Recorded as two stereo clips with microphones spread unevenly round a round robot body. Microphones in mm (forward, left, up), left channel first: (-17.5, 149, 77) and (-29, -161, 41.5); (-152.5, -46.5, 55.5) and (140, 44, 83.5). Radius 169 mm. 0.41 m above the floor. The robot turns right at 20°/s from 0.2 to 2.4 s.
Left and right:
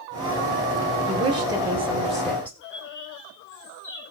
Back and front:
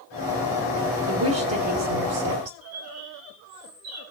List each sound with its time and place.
1.1 s a woman speaking: 25° right, 2 m; by 2.5 s straight ahead, 2 m
2.6 s a bird: 30° left, 4 m